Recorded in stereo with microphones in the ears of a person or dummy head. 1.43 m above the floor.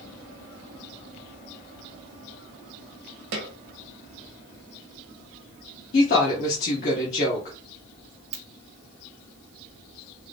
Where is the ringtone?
35° right (ahead or behind), 1.2 m.